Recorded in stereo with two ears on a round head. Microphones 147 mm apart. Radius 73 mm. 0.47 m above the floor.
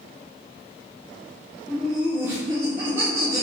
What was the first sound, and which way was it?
Laughter, 5° left (ahead or behind).